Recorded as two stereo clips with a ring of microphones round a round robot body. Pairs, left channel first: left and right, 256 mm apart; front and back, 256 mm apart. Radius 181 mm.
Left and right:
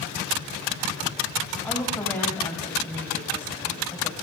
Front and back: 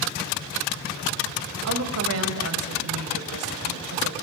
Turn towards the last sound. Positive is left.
turn(degrees=170)